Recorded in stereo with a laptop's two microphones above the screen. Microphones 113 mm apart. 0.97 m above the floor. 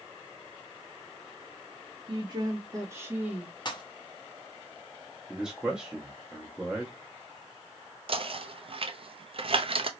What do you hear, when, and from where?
2.1 s a woman speaking: 40° right (ahead or behind), 1.3 m; by 3.5 s 10° right (ahead or behind), 1.5 m
3.6 s a pop: 40° left (ahead or behind), 1.0 m
5.3 s a man speaking: 5° right (ahead or behind), 0.7 m
8.1 s knocking: 50° right (ahead or behind), 0.6 m